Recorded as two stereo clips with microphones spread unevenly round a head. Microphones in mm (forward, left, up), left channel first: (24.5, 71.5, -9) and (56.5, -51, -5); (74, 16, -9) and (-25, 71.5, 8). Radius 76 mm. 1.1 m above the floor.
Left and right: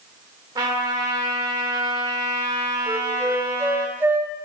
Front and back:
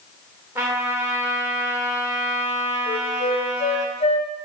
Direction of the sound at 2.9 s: 5° right.